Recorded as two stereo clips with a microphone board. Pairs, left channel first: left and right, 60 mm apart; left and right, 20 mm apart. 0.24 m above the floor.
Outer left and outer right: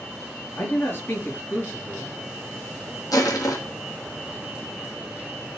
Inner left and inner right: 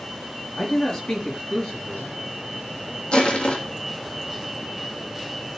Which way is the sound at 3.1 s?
75° left (ahead or behind).